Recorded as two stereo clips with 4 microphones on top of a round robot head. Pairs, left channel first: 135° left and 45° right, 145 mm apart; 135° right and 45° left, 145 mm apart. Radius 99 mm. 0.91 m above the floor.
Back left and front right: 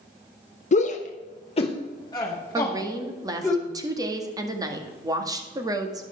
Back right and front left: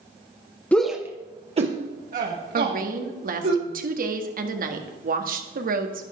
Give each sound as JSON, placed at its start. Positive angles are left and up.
{"t": 0.7, "sound": "a shout", "azimuth_deg": 150, "distance_m": 0.9}
{"t": 2.5, "sound": "a woman speaking", "azimuth_deg": 20, "distance_m": 1.8}